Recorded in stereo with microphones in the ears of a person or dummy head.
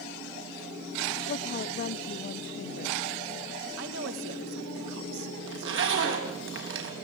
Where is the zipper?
70° right (ahead or behind), 4 m.